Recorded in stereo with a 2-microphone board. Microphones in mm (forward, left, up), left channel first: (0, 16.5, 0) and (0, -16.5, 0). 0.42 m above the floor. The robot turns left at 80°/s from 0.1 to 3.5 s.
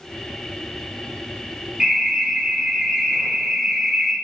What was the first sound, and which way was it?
An alarm, 35° right.